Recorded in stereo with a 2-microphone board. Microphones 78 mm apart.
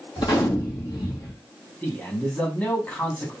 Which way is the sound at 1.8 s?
15° left (ahead or behind).